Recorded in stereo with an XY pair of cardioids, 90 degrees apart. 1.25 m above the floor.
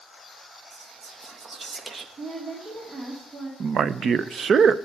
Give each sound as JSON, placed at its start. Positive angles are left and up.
{"t": 0.7, "sound": "whispering", "azimuth_deg": -40, "distance_m": 1.7}
{"t": 2.2, "sound": "a woman speaking", "azimuth_deg": -45, "distance_m": 2.5}
{"t": 3.6, "sound": "a man speaking", "azimuth_deg": -55, "distance_m": 0.6}